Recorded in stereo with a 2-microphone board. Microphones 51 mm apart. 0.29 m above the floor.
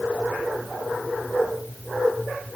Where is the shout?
No shout in this recording.